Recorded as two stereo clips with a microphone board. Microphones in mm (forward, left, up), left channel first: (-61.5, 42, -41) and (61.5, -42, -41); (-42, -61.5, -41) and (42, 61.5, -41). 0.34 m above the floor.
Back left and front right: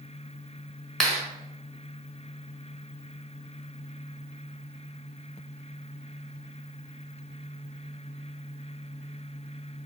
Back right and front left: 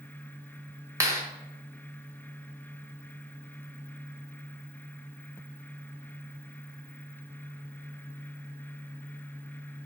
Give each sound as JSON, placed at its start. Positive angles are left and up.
{"t": 1.0, "sound": "a clap", "azimuth_deg": 65, "distance_m": 1.1}